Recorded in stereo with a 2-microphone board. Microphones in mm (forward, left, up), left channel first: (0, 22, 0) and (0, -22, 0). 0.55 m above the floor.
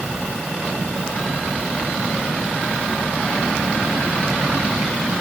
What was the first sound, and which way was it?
Only background noise.